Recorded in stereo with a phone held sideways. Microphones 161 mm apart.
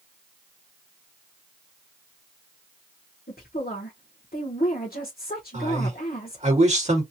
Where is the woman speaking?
75° left (ahead or behind), 1.2 m.